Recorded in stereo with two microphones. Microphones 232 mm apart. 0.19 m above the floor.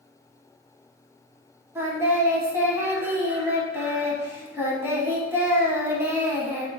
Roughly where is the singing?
Centre.